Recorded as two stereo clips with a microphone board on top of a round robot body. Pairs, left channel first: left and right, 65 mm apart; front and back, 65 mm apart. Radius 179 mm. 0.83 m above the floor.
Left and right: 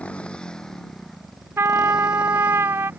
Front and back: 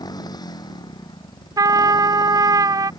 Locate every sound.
0.0 s a motorcycle: 20° left; by 3.0 s 25° right
1.6 s a trumpet: 145° right